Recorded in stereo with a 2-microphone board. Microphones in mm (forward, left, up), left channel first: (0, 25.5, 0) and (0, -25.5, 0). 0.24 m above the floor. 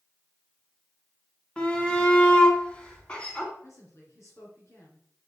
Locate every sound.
1.6 s a shout: 20° left (ahead or behind), 2 m
3.6 s a woman speaking: 60° left (ahead or behind), 3.5 m